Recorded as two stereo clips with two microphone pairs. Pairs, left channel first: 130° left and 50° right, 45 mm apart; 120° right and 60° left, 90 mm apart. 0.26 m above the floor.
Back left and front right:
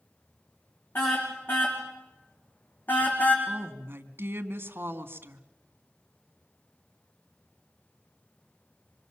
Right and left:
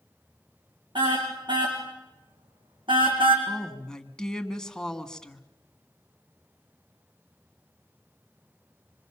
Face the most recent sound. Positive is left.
turn(degrees=-40)